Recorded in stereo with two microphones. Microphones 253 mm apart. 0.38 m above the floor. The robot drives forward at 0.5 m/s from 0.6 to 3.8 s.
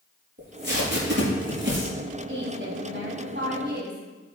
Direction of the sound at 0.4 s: 45° right (ahead or behind).